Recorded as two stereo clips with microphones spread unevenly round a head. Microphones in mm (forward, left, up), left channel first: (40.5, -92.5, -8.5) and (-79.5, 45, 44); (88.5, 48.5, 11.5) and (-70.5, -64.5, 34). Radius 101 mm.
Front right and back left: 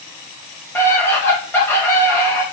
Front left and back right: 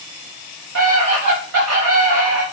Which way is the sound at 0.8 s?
130° right.